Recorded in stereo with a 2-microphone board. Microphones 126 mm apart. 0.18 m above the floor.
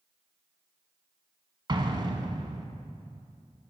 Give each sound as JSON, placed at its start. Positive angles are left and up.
{"t": 1.7, "sound": "an explosion", "side_deg": -40, "distance_m": 0.9}